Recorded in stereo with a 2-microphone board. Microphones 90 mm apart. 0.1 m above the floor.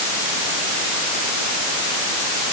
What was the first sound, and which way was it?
Only background noise.